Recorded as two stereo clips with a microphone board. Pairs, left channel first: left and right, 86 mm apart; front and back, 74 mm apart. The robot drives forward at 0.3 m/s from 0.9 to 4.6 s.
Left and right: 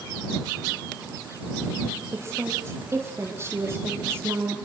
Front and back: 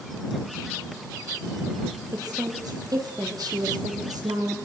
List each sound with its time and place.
2.1 s a woman speaking: 150° right, 6.5 m